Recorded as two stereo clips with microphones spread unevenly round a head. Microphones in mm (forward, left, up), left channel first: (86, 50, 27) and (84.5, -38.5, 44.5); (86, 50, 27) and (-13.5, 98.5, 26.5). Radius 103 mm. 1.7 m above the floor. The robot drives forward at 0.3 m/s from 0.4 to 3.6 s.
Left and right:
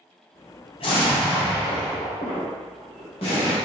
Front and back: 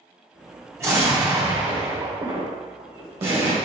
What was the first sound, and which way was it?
An explosion, 95° left.